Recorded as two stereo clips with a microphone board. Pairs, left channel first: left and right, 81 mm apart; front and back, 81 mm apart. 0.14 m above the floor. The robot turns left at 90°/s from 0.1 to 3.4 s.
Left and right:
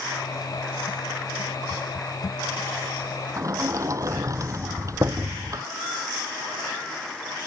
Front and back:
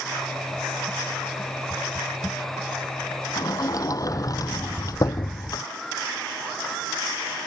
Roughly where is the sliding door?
Ahead right.